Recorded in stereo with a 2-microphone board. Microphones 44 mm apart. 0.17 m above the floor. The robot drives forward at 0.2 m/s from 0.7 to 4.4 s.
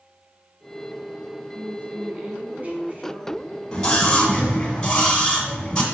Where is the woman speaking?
30° right (ahead or behind), 1.2 m; by 3.6 s 35° right (ahead or behind), 1.1 m.